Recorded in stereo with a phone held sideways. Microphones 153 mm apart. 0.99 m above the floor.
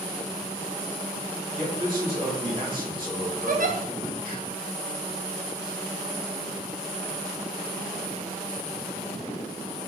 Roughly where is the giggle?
Right.